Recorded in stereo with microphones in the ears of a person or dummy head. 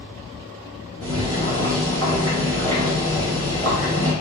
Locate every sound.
1.0 s boiling: 80° right, 1.9 m